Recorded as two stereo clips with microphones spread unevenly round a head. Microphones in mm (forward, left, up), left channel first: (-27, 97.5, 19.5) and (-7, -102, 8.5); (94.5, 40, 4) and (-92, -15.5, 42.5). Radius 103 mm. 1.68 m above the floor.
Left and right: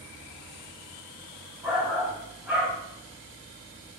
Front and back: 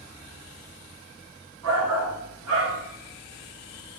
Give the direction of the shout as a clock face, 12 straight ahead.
6 o'clock.